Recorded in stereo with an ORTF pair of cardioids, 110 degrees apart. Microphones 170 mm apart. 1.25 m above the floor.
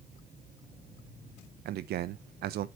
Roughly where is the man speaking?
Ahead right.